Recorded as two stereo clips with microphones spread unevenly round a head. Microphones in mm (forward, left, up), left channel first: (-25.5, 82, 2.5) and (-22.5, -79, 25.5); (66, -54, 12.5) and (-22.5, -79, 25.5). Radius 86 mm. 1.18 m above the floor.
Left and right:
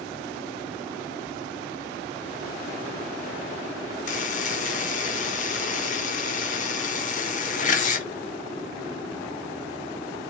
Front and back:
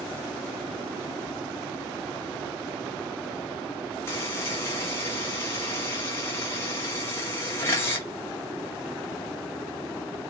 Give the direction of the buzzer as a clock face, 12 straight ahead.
10 o'clock.